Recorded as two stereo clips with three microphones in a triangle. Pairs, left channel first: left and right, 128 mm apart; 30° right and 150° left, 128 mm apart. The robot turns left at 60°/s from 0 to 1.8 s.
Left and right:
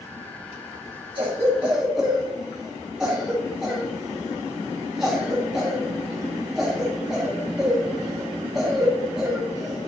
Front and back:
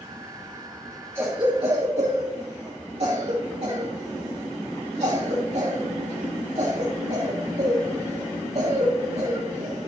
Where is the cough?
135° right, 1.5 m; by 9.9 s 175° right, 1.5 m.